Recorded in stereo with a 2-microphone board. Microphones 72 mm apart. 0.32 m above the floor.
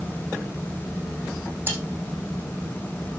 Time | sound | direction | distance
1.7 | cutlery clinking | 30° right (ahead or behind) | 9.5 m